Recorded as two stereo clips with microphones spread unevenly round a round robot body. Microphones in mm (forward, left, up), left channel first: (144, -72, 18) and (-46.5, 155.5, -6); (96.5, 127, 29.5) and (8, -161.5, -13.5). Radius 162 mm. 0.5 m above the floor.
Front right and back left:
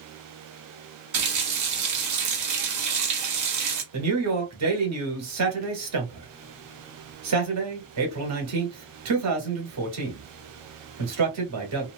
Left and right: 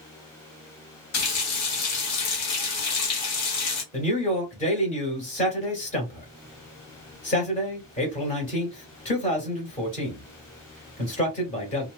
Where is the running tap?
115° left, 1.3 m.